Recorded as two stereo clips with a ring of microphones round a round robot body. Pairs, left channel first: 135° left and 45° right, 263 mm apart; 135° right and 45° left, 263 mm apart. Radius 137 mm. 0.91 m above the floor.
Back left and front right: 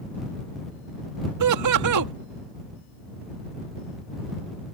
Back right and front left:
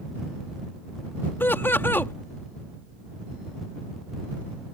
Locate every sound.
1.4 s laughter: 55° right